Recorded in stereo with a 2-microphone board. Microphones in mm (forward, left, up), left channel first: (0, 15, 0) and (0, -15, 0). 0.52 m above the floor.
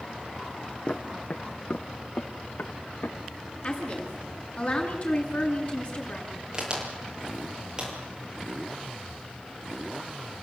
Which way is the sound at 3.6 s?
40° left (ahead or behind).